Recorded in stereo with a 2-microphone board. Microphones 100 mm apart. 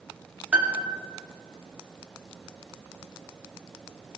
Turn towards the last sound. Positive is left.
turn(degrees=-15)  # may be behind; listen again after turning